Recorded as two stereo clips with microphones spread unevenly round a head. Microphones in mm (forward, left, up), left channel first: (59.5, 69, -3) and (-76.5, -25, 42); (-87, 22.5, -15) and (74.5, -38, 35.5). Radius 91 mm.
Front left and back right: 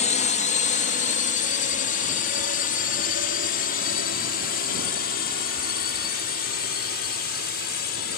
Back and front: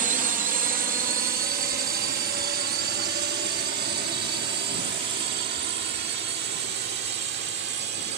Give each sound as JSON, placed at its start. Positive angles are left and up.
{"t": 0.0, "sound": "a drone", "azimuth_deg": 30}